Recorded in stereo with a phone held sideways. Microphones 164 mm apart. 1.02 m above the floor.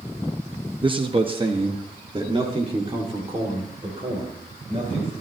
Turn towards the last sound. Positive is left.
turn(degrees=-35)  # may be behind; listen again after turning